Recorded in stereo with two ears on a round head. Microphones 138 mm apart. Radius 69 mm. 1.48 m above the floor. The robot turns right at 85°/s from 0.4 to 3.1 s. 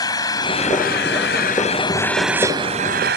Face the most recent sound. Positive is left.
turn(degrees=-105)